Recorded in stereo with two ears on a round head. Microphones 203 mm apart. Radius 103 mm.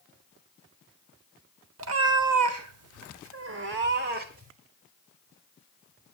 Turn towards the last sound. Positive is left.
turn(degrees=-35)  # may be behind; listen again after turning